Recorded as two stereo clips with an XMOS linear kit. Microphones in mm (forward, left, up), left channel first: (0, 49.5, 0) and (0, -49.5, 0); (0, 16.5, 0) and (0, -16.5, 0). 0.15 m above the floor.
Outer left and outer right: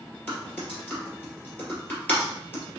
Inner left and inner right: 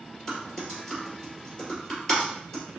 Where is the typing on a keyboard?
20° left (ahead or behind), 2 m.